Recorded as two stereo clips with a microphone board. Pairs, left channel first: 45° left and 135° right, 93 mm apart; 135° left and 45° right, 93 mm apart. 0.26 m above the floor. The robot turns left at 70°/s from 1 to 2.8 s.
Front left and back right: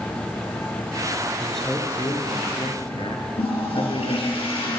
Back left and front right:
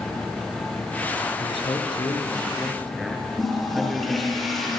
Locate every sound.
1.4 s a man speaking: 145° left, 4 m; by 4.4 s 45° left, 4 m
3.4 s a toilet flushing: 45° left, 6.5 m